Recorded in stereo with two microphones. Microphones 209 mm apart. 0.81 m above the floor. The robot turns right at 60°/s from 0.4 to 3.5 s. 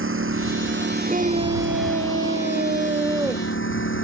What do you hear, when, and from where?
0.0 s a lawn mower: 90° right; by 4.0 s 75° left (ahead or behind)
1.1 s a scream: 145° right; by 3.5 s straight ahead